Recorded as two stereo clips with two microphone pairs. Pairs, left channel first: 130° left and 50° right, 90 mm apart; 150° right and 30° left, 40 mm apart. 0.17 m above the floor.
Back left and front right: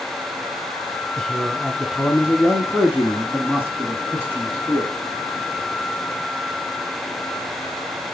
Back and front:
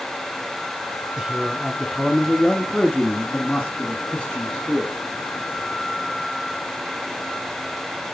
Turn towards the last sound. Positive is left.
turn(degrees=-110)